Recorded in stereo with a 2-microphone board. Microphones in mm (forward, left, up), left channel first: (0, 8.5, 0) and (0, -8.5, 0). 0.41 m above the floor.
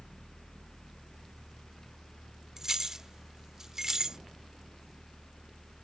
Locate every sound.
2.6 s keys jangling: 25° right (ahead or behind)